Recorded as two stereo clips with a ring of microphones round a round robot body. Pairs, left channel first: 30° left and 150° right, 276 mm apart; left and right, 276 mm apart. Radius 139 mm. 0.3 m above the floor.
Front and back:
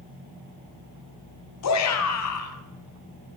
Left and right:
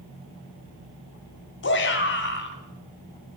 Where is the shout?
45° left, 2.0 m.